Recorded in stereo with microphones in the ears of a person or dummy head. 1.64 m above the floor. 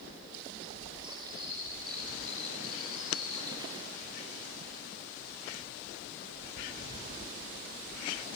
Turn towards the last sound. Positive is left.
turn(degrees=-25)  # may be behind; listen again after turning